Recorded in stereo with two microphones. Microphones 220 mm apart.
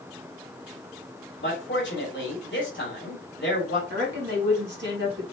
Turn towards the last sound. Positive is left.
turn(degrees=-55)  # may be behind; listen again after turning